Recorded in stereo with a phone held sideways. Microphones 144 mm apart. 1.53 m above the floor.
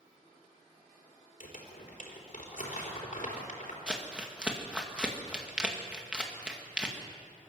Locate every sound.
1.4 s crumpling: 65° left (ahead or behind), 4 m
3.9 s crumpling: 5° right (ahead or behind), 2 m